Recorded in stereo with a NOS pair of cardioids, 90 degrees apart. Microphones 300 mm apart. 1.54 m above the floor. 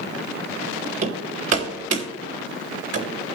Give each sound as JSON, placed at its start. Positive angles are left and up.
{"t": 1.0, "sound": "hammering", "azimuth_deg": -55, "distance_m": 3.0}